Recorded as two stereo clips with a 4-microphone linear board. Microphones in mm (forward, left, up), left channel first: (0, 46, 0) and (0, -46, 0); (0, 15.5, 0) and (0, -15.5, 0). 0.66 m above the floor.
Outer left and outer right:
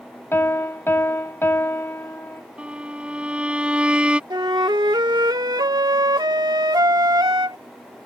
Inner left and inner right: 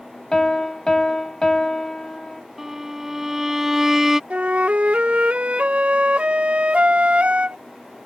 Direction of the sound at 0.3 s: 25° left (ahead or behind).